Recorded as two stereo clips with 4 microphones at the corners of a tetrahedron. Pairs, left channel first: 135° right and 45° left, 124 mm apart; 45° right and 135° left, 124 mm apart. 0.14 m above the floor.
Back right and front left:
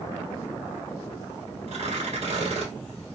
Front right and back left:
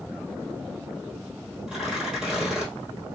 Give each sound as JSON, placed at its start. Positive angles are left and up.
{"t": 1.7, "sound": "tearing paper", "azimuth_deg": 50, "distance_m": 1.3}